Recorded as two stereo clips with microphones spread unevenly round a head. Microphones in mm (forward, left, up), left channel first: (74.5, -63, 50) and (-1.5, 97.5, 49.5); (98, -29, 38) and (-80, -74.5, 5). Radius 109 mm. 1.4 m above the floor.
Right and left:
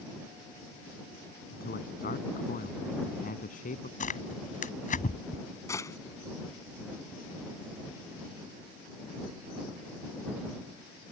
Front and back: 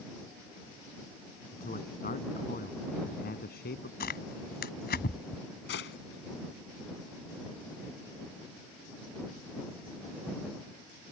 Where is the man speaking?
30° right; by 3.9 s 20° right.